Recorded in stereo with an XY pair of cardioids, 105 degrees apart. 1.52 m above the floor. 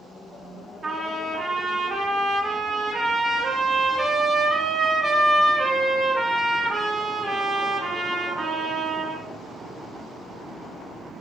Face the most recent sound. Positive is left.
turn(degrees=-30)